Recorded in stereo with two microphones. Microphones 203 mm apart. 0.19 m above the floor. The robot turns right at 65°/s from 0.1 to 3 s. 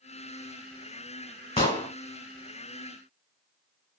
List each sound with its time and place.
1.6 s an explosion: 25° left (ahead or behind), 1.3 m; by 1.9 s 15° left (ahead or behind), 1.3 m